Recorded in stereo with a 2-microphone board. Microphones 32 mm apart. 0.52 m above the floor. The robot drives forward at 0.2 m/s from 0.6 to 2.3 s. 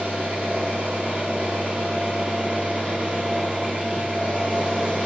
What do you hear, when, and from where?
0.0 s an engine running: 60° right (ahead or behind), 1.6 m